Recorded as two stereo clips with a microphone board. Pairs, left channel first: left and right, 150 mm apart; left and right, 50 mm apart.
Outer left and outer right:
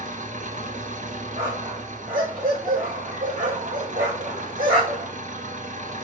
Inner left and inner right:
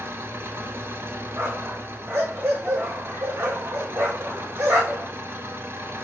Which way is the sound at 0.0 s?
60° right (ahead or behind).